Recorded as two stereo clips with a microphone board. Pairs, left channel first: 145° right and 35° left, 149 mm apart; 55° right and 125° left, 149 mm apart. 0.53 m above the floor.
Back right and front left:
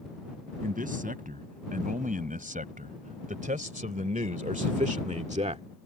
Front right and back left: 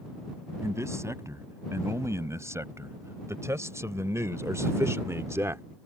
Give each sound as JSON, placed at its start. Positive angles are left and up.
{"t": 0.6, "sound": "a man speaking", "azimuth_deg": 55}